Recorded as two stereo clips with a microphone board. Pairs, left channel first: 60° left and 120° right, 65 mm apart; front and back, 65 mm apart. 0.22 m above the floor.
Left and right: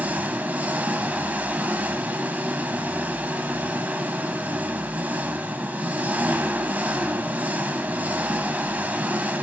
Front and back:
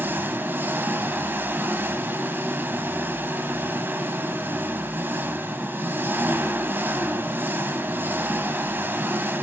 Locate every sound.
0.0 s an engine running: 165° right, 1.3 m